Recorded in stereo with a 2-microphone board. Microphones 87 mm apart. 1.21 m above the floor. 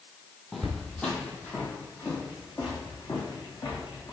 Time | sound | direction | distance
0.5 | footsteps | centre (ahead or behind) | 1.4 m